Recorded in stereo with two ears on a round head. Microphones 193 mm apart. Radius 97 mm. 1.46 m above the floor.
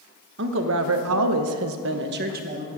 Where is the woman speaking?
55° right (ahead or behind), 1.6 m; by 2.7 s 35° right (ahead or behind), 1.7 m.